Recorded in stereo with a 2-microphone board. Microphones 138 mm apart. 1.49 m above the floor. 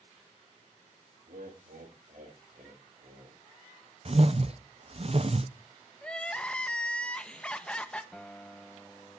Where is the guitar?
5° left (ahead or behind), 0.8 m.